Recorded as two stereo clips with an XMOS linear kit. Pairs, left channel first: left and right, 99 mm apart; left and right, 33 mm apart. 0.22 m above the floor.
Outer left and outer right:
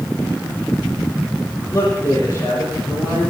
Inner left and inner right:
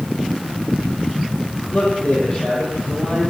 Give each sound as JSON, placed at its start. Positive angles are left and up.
{"t": 1.7, "sound": "a man speaking", "side_deg": 30, "distance_m": 8.5}